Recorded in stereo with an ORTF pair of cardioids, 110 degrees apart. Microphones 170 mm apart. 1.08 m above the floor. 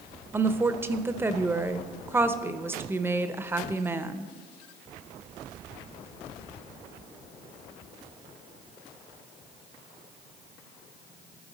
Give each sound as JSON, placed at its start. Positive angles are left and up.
{"t": 0.3, "sound": "a woman speaking", "azimuth_deg": -15, "distance_m": 0.6}